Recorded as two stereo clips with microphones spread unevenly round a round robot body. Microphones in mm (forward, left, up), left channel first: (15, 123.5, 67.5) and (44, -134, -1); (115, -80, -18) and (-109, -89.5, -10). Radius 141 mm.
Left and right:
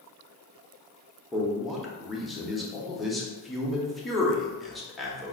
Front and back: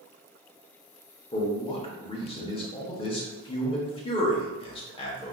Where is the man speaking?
25° right, 0.9 m.